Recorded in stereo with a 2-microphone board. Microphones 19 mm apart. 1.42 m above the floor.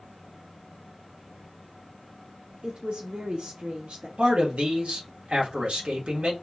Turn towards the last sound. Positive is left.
turn(degrees=-90)